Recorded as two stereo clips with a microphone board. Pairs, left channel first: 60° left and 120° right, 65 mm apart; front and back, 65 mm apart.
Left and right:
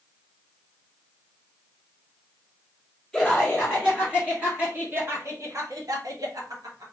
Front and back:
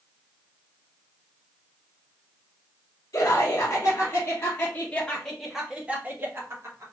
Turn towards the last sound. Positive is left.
turn(degrees=-140)